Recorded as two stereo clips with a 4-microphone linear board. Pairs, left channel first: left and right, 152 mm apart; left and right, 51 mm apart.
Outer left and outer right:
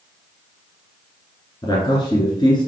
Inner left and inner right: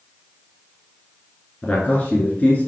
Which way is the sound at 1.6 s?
30° left (ahead or behind).